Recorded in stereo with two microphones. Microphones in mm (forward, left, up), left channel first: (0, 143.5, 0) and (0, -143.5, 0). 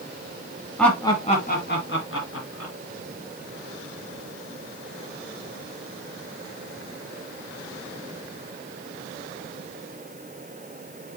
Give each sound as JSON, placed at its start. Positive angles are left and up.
{"t": 0.8, "sound": "laughter", "side_deg": 0, "distance_m": 1.8}